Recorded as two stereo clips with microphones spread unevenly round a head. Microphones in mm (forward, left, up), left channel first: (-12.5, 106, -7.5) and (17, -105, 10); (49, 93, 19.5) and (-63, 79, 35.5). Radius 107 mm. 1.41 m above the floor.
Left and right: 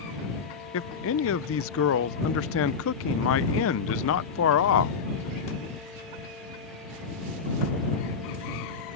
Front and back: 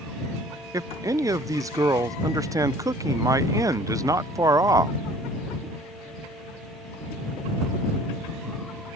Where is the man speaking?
125° left.